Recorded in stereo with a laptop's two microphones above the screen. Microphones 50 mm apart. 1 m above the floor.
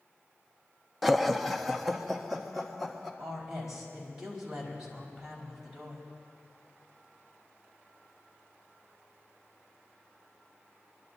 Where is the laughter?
Centre (ahead or behind), 0.6 m.